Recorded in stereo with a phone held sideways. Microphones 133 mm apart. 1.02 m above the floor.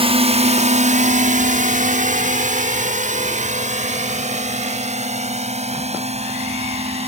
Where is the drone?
45° right (ahead or behind).